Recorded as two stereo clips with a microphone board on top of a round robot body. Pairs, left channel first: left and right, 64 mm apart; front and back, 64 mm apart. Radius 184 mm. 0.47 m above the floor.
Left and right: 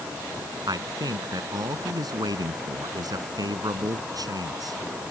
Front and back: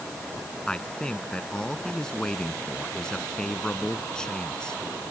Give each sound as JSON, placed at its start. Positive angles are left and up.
{"t": 0.7, "sound": "a man speaking", "azimuth_deg": -80}